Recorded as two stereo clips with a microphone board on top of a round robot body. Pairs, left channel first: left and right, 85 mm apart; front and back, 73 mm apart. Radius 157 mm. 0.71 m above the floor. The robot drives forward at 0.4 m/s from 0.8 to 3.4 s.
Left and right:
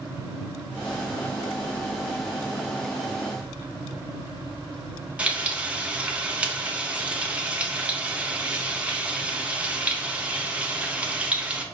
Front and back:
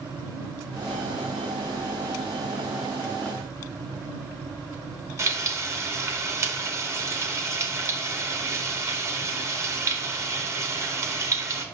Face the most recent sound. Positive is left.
turn(degrees=-160)